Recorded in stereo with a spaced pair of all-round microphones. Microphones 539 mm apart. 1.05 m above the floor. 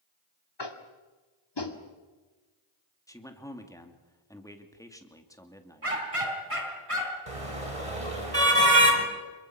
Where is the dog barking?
80° right, 4 m.